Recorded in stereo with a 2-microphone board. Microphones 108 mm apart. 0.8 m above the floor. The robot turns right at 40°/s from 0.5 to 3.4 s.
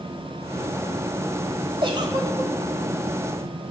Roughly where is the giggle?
Right.